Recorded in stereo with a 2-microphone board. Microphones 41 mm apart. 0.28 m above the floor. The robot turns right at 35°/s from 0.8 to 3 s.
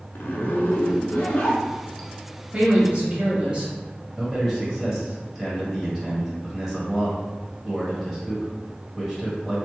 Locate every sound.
0.1 s a zipper: 120° left, 0.6 m; by 2.1 s 165° left, 0.6 m
2.5 s a woman speaking: 35° right (ahead or behind), 1.1 m; by 3.7 s 30° right (ahead or behind), 1.1 m
4.2 s a man speaking: 10° right (ahead or behind), 1.3 m